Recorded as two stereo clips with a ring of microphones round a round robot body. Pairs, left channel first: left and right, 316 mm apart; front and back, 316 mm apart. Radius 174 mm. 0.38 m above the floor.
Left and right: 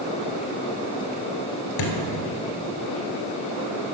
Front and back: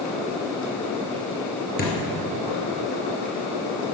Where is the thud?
65° left, 1.7 m.